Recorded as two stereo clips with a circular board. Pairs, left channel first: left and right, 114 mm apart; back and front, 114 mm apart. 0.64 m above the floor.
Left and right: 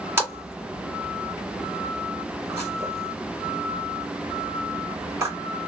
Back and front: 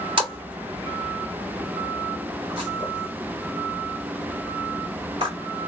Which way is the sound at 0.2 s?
30° right.